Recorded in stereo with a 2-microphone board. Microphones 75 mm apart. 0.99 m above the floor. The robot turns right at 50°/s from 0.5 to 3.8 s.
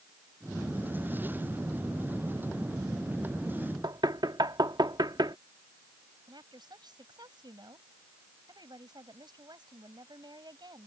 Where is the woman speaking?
70° right (ahead or behind).